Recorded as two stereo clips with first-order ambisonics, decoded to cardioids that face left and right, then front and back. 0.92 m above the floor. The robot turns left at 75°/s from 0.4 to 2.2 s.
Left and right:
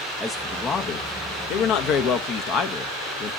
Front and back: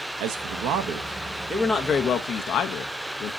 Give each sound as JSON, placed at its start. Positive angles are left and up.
{"t": 0.2, "sound": "a man speaking", "azimuth_deg": 180, "distance_m": 0.7}